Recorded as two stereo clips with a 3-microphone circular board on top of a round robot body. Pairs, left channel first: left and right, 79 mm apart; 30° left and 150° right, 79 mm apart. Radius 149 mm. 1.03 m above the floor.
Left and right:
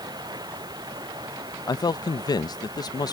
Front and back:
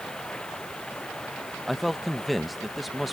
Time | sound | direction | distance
0.0 | running water | 50° right | ?
1.7 | a man speaking | 120° left | ?